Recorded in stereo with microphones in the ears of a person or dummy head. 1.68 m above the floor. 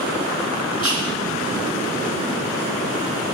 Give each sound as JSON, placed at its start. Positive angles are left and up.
{"t": 0.8, "sound": "whispering", "side_deg": 30, "distance_m": 2.5}